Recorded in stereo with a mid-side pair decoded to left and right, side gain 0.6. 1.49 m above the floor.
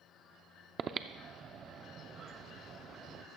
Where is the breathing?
40° right, 0.6 m.